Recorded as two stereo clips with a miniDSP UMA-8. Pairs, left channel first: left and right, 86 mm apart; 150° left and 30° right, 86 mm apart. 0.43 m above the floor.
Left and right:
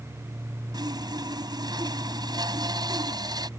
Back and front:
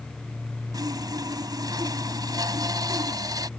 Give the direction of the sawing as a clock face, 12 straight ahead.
2 o'clock.